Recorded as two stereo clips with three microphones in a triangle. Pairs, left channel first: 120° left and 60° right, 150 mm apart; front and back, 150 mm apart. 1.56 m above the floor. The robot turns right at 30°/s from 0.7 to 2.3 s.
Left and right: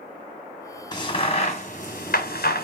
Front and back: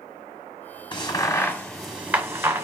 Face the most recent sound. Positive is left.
turn(degrees=105)